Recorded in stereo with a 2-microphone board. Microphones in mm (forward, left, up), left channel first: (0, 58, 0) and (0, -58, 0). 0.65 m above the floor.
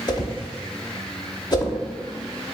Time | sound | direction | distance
0.1 | a whoosh | 35° left (ahead or behind) | 0.7 m